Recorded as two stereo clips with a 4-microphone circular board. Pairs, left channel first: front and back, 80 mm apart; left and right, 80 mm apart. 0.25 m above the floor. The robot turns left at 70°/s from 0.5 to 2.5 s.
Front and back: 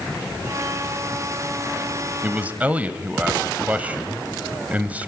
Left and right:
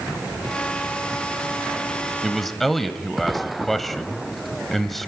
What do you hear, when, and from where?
2.2 s a man speaking: 170° right, 1.0 m; by 5.1 s 175° left, 1.0 m